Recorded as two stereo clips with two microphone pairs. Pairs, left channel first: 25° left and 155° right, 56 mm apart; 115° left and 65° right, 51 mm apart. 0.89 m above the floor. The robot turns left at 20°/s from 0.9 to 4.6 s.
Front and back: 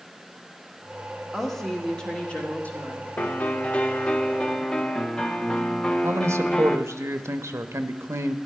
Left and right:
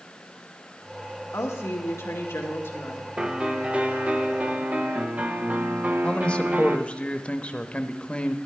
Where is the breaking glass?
I don't hear breaking glass.